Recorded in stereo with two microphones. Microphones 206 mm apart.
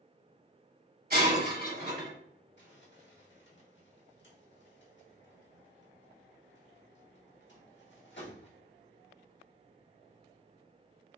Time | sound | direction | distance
1.1 | breaking glass | 50° right (ahead or behind) | 1.6 m
2.6 | crumpling | 65° left (ahead or behind) | 1.2 m